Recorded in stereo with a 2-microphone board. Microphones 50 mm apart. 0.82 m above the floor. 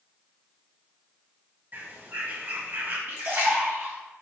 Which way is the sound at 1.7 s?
40° right (ahead or behind).